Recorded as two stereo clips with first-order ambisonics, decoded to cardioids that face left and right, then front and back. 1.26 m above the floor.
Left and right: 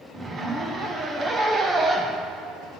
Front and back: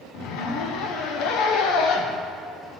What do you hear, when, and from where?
0.1 s a zipper: 20° right, 0.7 m